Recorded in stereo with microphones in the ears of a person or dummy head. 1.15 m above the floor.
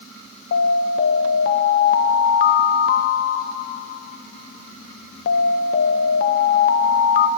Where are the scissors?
I don't hear scissors.